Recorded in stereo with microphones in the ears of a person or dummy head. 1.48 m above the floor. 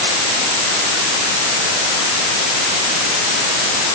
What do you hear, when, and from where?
Only background noise.